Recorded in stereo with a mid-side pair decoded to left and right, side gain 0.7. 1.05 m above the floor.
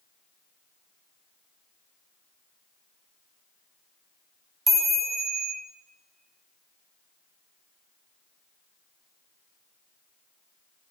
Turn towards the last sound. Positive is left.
turn(degrees=-25)